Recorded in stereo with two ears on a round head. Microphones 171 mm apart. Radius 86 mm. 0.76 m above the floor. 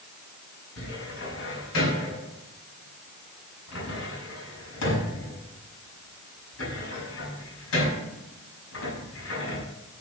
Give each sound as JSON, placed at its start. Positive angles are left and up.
{"t": 0.8, "sound": "a cupboard door", "side_deg": 80, "distance_m": 5.0}